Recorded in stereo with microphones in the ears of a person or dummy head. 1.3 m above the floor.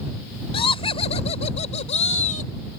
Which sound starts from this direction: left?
Laughter, at 0.5 s.